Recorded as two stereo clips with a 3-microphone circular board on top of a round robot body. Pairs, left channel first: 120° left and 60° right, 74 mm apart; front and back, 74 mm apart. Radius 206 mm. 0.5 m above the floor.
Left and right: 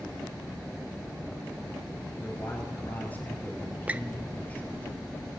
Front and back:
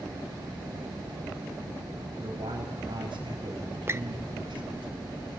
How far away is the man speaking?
About 4 m.